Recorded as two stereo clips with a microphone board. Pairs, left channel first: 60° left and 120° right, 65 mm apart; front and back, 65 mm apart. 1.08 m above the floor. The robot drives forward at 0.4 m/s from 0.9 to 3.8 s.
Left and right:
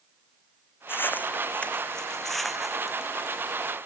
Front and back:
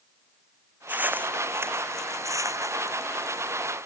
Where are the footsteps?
115° left; by 3.7 s 170° left.